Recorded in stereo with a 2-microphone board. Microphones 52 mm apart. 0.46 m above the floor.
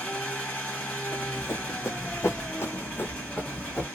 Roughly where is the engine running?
Left.